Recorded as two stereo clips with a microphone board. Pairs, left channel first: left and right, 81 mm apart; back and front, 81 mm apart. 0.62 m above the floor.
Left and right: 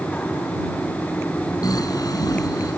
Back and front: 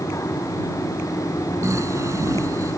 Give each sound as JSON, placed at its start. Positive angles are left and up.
{"t": 1.6, "sound": "snoring", "azimuth_deg": 50}